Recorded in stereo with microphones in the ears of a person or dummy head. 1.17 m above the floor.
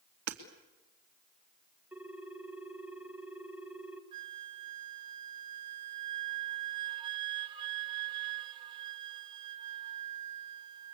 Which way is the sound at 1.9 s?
5° right (ahead or behind).